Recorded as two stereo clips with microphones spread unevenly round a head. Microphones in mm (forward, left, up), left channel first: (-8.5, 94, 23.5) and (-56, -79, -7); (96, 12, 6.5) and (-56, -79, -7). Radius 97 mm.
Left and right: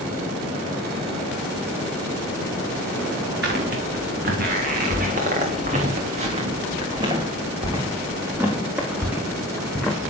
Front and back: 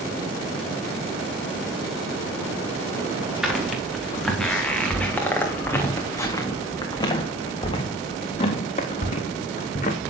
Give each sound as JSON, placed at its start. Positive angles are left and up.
{"t": 3.4, "sound": "footsteps", "azimuth_deg": -60, "distance_m": 4.5}